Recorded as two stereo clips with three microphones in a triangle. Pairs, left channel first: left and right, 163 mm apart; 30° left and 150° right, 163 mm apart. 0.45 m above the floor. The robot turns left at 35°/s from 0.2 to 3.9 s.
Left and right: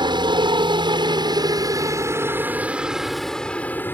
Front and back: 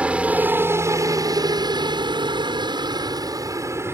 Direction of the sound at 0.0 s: 75° right.